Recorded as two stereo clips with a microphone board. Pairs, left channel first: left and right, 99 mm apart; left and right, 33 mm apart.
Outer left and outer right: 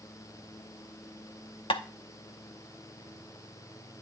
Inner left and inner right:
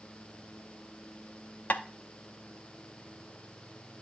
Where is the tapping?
65° left (ahead or behind), 0.7 m.